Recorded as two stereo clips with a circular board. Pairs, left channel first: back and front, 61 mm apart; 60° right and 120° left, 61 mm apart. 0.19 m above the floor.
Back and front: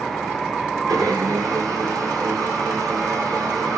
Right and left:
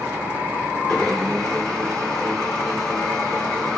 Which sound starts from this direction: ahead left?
A blender, at 0.9 s.